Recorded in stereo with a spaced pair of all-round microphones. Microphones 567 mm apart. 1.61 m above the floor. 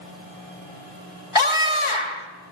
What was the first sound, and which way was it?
A scream, 55° left (ahead or behind).